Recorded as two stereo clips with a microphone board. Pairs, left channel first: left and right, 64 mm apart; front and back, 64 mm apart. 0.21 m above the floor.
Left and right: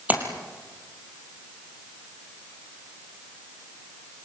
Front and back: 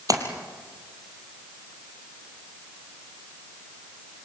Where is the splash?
155° right, 3 m.